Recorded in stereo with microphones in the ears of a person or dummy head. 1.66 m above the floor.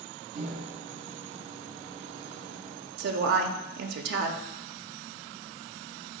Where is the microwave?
40° right (ahead or behind), 0.7 m.